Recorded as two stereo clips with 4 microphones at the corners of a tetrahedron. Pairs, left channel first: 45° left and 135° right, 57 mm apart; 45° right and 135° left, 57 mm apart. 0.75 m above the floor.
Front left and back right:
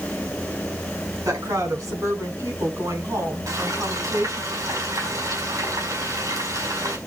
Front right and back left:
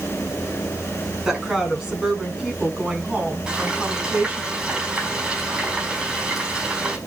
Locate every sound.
1.2 s a woman speaking: 140° right, 8 m; by 4.5 s 155° right, 7 m
3.5 s frying: 150° right, 5 m